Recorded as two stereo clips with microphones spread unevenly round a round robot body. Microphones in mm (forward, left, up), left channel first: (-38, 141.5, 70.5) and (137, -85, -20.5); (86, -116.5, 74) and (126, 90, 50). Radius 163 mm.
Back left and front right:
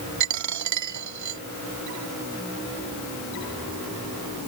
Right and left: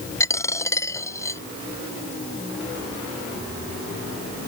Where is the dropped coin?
25° right.